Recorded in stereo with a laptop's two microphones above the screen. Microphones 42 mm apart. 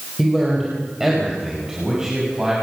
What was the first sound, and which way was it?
A man speaking, 5° right (ahead or behind).